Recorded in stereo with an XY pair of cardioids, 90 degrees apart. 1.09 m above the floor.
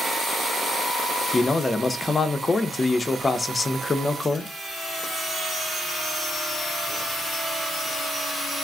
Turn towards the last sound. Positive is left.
turn(degrees=30)